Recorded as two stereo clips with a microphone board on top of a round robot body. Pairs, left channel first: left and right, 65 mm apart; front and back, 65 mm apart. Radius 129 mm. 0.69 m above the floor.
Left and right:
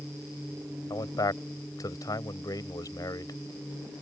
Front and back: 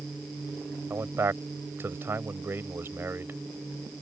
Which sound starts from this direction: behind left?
A man speaking, at 0.9 s.